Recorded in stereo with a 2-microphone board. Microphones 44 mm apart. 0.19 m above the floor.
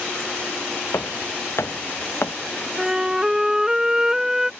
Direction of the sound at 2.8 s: 15° right (ahead or behind).